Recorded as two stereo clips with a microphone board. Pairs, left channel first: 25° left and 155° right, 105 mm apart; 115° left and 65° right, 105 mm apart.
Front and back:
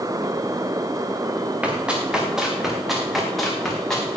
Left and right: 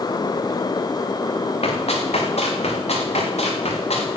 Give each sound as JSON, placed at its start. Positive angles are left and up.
{"t": 1.6, "sound": "running footsteps", "azimuth_deg": 125, "distance_m": 4.0}